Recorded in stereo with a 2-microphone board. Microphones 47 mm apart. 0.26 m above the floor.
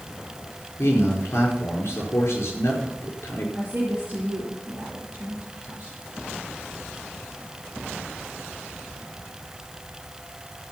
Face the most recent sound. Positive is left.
turn(degrees=-25)  # may be behind; listen again after turning